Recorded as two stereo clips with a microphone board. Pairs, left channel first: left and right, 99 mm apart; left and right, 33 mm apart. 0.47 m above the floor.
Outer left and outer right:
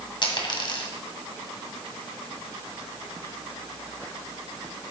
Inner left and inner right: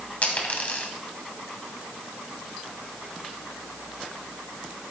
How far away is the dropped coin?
About 1.5 m.